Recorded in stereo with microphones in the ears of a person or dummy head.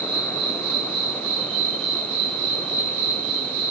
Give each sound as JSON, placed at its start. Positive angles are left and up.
{"t": 0.0, "sound": "an insect", "side_deg": -75, "distance_m": 1.1}